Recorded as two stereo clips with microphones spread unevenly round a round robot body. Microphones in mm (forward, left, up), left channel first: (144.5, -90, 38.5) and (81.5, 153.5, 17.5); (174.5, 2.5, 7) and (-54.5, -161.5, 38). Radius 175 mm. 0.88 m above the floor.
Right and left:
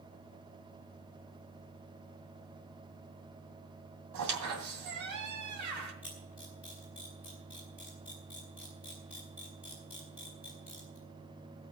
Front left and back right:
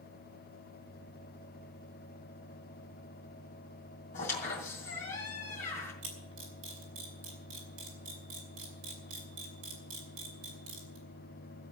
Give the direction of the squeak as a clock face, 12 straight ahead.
8 o'clock.